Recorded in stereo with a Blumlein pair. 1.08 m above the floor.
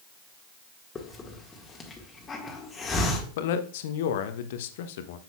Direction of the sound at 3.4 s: 55° left.